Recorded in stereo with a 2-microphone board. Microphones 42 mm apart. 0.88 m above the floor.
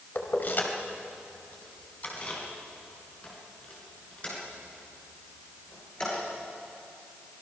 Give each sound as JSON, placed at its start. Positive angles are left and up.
{"t": 0.1, "sound": "keys jangling", "side_deg": 55, "distance_m": 2.5}